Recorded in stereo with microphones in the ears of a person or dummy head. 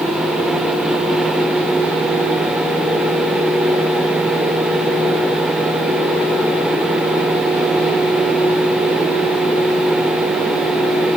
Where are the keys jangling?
I don't hear keys jangling.